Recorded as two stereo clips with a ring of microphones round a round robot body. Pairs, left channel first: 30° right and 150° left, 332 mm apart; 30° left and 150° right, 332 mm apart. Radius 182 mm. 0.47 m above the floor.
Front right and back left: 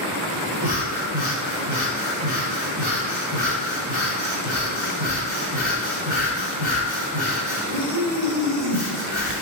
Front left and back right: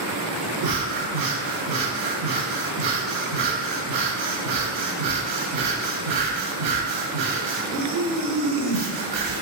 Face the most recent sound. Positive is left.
turn(degrees=-125)